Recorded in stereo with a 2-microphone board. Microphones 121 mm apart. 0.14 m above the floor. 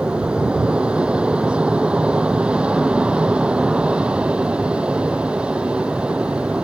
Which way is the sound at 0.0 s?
10° right (ahead or behind).